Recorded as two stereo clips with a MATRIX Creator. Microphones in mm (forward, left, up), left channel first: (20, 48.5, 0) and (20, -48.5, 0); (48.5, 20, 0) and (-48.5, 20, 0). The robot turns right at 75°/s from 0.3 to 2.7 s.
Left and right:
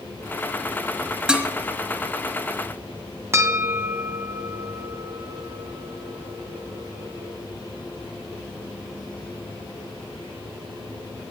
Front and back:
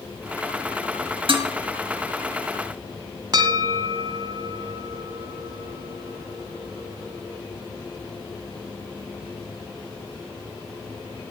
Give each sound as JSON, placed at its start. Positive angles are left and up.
{"t": 1.3, "sound": "dishes clattering", "azimuth_deg": -170, "distance_m": 1.6}
{"t": 3.3, "sound": "a bell", "azimuth_deg": -145, "distance_m": 2.0}